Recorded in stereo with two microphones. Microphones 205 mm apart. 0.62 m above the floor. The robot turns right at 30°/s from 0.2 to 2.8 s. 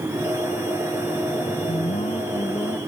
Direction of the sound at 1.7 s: 135° left.